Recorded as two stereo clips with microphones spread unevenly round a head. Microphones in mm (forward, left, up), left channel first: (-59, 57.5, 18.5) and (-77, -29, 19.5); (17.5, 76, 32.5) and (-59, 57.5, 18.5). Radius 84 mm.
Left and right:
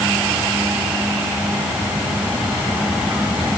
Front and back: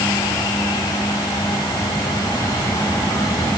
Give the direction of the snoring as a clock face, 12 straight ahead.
No snoring in this recording.